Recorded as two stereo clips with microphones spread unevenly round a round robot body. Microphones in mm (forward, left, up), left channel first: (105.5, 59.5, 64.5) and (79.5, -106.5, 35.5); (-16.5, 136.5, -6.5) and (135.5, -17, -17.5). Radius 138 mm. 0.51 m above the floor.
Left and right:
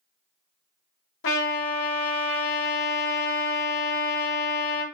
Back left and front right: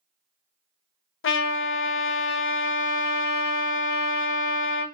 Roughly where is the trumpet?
Left.